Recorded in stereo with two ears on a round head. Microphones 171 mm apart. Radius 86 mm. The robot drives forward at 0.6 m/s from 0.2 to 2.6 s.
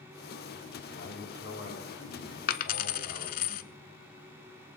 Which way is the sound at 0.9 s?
75° left (ahead or behind).